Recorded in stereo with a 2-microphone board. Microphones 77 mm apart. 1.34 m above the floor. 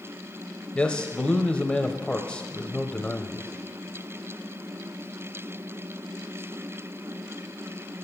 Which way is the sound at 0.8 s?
10° left (ahead or behind).